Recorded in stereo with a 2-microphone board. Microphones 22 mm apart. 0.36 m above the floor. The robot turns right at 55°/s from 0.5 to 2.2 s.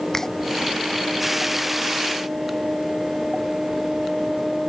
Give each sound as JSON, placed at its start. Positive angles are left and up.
{"t": 0.1, "sound": "a finger snap", "side_deg": 20}